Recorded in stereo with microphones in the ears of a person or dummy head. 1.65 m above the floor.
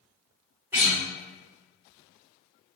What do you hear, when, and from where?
0.7 s a guitar: 10° right (ahead or behind), 1.7 m